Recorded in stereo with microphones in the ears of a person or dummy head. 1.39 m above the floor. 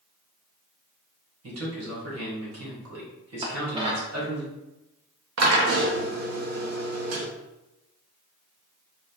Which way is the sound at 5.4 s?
80° right.